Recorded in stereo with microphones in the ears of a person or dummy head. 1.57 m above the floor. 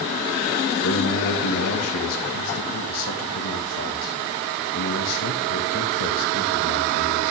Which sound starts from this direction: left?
A man speaking, at 0.8 s.